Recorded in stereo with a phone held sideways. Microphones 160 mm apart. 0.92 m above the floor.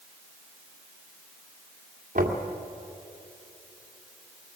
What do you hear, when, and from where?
2.1 s knocking: 55° right (ahead or behind), 2 m